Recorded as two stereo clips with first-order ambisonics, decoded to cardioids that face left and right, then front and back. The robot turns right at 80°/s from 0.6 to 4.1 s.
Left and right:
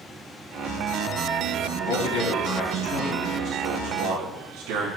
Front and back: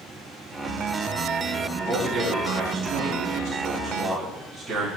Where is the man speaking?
80° left, 6 m; by 4.9 s 100° right, 6 m.